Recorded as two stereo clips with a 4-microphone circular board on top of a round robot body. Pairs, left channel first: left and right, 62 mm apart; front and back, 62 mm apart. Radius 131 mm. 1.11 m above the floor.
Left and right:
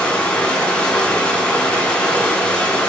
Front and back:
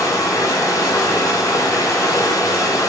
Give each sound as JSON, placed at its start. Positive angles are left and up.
{"t": 0.0, "sound": "running water", "azimuth_deg": 20, "distance_m": 6.5}